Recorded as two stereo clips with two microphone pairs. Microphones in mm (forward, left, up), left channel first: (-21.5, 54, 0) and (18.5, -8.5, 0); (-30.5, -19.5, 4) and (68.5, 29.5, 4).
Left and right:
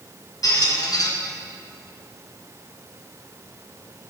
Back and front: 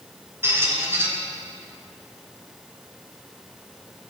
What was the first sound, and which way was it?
A squeak, 95° left.